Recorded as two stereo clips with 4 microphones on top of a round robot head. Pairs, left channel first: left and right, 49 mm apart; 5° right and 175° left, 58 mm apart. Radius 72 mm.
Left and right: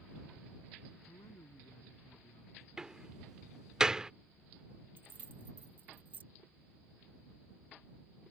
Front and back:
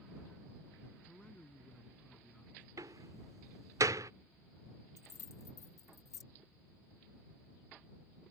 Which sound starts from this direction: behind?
A door slam, at 2.8 s.